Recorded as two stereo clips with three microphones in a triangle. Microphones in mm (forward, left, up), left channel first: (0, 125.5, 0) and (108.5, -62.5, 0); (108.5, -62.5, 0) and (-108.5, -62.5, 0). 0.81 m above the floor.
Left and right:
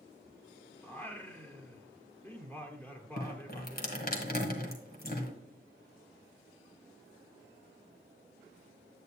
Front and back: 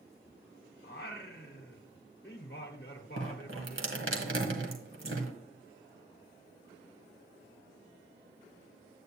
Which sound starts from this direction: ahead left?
Singing, at 0.8 s.